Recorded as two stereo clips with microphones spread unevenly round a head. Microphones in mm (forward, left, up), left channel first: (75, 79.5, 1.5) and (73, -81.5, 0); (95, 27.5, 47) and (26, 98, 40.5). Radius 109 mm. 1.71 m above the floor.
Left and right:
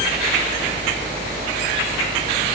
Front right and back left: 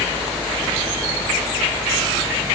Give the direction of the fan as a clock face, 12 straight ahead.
4 o'clock.